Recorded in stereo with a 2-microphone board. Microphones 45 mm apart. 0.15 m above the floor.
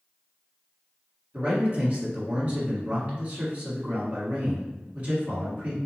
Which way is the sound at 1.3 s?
35° right (ahead or behind).